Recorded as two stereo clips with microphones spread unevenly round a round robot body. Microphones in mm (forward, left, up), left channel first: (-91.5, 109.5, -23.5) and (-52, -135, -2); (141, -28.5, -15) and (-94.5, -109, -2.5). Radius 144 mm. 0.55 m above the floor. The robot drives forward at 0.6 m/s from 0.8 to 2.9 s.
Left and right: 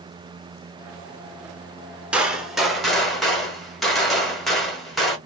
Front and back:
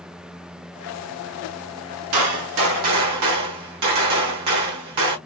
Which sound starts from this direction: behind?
A gunshot, at 2.1 s.